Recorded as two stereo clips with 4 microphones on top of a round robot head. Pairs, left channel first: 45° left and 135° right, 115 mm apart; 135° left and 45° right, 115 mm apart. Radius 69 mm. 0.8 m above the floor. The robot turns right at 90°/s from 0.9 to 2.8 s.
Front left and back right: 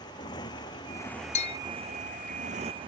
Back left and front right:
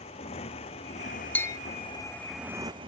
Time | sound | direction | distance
0.0 | a motorcycle | 100° left | ?
1.4 | a bell | 60° left | ?